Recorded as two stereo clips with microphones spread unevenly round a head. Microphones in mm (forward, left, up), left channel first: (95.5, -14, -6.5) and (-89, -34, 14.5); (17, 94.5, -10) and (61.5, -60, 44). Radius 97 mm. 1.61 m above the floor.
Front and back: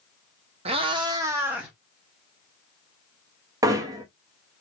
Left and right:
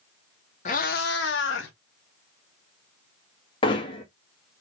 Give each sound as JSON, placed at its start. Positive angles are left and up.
{"t": 0.7, "sound": "a cat meowing", "azimuth_deg": 165, "distance_m": 1.0}
{"t": 3.6, "sound": "hammering", "azimuth_deg": 175, "distance_m": 0.9}